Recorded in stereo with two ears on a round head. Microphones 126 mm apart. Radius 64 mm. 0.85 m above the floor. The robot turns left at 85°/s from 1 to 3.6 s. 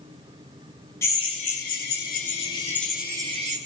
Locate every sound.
1.0 s a drill: 160° left, 9.5 m; by 3.6 s 55° right, 9.5 m